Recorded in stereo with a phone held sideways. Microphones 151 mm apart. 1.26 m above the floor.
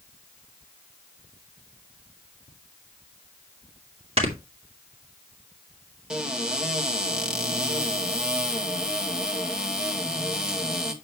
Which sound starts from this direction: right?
Snoring, at 4.2 s.